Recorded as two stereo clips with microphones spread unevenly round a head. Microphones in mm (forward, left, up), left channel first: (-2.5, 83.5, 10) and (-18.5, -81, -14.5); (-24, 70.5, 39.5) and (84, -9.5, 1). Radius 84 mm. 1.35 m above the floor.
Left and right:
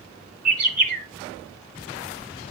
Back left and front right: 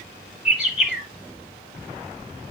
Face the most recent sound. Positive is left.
turn(degrees=-135)